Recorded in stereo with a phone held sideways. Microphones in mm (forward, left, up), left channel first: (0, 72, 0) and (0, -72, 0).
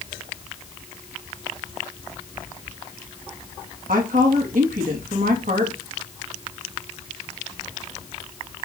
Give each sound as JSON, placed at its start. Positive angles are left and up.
{"t": 3.9, "sound": "a woman speaking", "side_deg": -80, "distance_m": 2.0}